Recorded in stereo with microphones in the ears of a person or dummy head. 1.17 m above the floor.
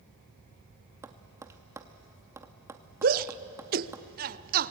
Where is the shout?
40° right (ahead or behind), 0.7 m.